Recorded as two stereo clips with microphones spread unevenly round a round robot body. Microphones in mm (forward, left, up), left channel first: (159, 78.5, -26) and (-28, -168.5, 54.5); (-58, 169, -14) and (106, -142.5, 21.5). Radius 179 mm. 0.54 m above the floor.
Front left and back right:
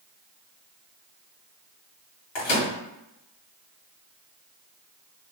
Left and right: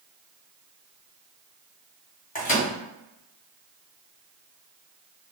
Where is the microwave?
55° left, 1.7 m.